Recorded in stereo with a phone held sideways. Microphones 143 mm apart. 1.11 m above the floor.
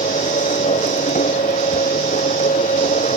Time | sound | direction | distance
0.0 | a machine running | 60° left (ahead or behind) | ?